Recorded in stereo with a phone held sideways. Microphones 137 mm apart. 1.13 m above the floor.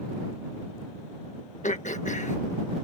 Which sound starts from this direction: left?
Throat clearing, at 1.6 s.